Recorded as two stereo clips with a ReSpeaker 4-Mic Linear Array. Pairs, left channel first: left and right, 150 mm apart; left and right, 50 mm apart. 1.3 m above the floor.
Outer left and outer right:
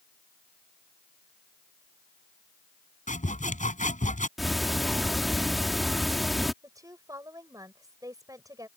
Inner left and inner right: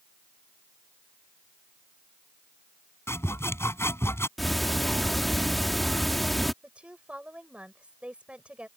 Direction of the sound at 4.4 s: Centre (ahead or behind).